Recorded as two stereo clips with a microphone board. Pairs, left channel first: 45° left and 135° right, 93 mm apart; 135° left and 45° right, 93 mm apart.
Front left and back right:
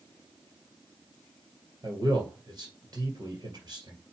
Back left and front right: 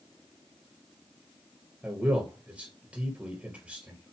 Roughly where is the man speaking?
Behind right.